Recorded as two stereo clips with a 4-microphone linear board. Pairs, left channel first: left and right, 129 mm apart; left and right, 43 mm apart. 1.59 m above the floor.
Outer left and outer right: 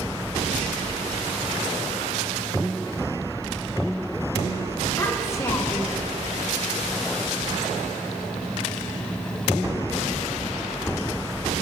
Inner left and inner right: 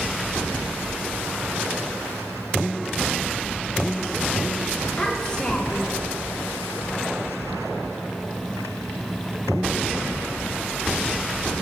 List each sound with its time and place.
5.0 s a child speaking: 20° left (ahead or behind), 1.4 m; by 6.0 s 25° left (ahead or behind), 0.6 m